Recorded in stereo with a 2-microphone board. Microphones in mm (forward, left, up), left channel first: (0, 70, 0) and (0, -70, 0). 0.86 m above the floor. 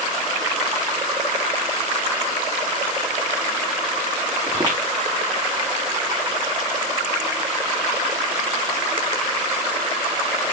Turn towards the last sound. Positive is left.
turn(degrees=-25)  # may be behind; listen again after turning